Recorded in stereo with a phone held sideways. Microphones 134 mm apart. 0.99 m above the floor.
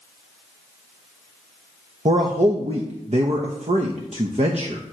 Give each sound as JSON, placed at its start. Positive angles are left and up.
{"t": 2.0, "sound": "a man speaking", "side_deg": -55, "distance_m": 0.8}